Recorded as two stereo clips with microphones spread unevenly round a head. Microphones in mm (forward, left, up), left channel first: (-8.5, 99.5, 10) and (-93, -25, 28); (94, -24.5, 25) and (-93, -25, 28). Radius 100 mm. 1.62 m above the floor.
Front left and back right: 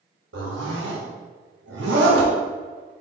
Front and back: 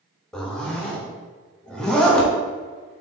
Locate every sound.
0.3 s a zipper: 85° right, 0.6 m